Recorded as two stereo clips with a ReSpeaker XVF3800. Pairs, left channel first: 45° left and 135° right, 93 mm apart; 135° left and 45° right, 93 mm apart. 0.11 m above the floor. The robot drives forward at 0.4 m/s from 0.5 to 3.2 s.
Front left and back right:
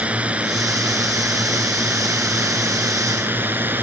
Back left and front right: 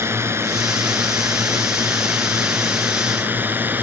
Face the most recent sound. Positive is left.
turn(degrees=-90)